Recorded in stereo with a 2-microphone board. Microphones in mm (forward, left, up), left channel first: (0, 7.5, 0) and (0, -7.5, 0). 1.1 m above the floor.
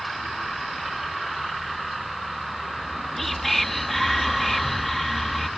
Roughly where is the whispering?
Centre.